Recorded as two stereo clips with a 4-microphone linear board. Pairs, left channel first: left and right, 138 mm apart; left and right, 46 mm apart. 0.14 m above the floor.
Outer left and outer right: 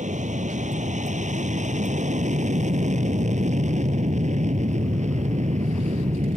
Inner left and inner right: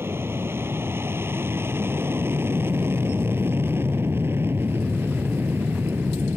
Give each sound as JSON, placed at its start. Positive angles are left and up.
{"t": 0.0, "sound": "an aircraft", "side_deg": -60}